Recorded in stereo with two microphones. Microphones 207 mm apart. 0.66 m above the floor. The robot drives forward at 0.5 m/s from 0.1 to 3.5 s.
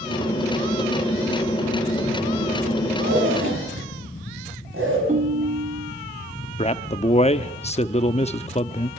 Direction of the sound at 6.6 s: 30° left (ahead or behind).